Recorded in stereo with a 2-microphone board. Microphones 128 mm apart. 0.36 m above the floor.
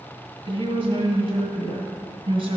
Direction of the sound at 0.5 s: 50° right (ahead or behind).